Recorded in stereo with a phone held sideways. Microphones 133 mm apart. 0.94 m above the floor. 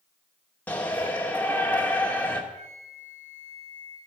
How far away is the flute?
About 5 m.